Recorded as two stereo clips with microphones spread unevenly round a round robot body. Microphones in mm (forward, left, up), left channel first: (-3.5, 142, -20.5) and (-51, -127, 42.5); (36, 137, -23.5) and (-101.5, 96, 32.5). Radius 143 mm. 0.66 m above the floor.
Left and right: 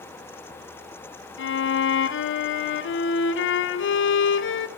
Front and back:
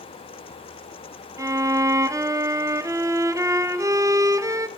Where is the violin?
120° left, 0.9 m.